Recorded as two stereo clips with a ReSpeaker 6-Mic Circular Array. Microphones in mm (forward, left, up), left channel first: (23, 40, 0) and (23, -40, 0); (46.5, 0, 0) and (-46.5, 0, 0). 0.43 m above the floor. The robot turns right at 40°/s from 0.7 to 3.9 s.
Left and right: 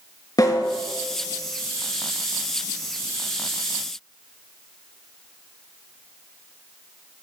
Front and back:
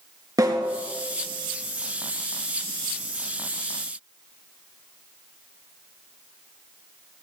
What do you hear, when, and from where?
0.4 s a snare drum: 130° left, 4 m; by 0.8 s 135° left, 4 m